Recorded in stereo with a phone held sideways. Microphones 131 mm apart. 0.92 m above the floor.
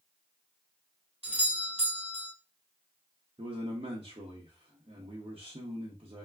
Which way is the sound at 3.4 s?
45° right (ahead or behind).